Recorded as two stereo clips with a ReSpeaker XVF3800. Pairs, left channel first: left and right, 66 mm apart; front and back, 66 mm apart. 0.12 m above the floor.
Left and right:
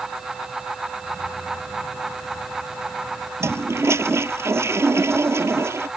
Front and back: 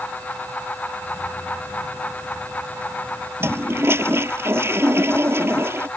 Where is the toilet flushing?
130° right.